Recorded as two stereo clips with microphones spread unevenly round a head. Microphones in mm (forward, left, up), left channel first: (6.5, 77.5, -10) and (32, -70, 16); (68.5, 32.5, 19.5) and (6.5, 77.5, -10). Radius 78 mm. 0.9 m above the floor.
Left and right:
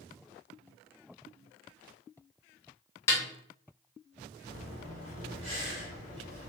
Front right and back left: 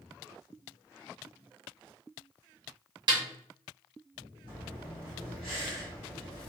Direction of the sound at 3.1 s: 170° left.